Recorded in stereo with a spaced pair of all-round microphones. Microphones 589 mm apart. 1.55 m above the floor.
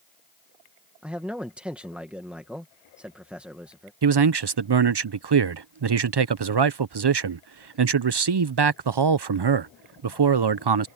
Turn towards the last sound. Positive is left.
turn(degrees=-50)  # may be behind; listen again after turning